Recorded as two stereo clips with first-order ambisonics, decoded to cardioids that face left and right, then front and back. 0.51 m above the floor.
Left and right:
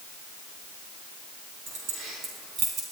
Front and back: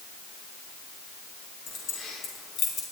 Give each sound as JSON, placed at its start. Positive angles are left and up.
{"t": 1.7, "sound": "keys jangling", "azimuth_deg": -55, "distance_m": 4.5}